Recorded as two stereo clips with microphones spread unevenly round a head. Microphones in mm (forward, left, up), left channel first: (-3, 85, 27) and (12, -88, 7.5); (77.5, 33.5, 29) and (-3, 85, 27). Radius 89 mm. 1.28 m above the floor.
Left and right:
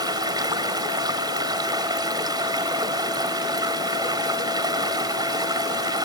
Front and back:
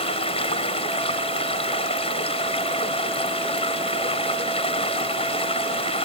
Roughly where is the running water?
Ahead.